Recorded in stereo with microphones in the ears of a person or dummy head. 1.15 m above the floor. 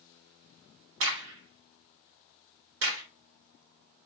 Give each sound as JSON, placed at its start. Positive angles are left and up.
{"t": 1.0, "sound": "a crack", "side_deg": -75, "distance_m": 1.9}